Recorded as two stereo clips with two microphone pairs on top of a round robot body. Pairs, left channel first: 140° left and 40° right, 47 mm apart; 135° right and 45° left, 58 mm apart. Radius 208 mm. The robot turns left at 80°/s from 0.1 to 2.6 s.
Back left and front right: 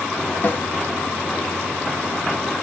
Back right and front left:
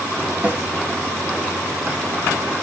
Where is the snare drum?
100° left, 2 m; by 0.6 s 85° left, 2 m.